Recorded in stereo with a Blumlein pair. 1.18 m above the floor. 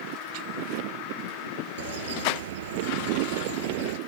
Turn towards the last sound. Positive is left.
turn(degrees=-60)